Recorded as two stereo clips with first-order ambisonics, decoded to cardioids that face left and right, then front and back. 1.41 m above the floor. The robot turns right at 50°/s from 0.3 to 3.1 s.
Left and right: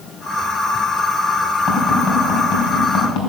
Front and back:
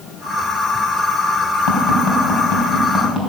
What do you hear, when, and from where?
1.7 s tapping: 5° right, 3.5 m; by 3.3 s 70° left, 3.5 m